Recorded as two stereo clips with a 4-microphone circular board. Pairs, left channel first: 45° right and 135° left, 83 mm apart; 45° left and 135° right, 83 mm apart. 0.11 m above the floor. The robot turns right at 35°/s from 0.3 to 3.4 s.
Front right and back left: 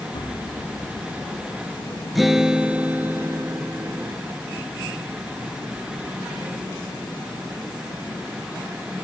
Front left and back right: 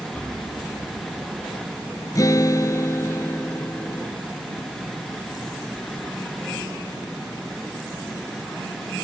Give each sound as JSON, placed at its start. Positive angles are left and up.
{"t": 0.1, "sound": "an explosion", "azimuth_deg": -25, "distance_m": 3.0}
{"t": 2.1, "sound": "a guitar", "azimuth_deg": 45, "distance_m": 0.5}